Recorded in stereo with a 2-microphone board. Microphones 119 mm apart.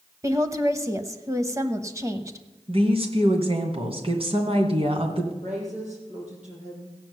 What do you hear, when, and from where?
0.2 s a woman speaking: 25° right (ahead or behind), 1.1 m
2.7 s a woman speaking: 55° right (ahead or behind), 2.5 m
5.4 s a woman speaking: 80° right, 6.5 m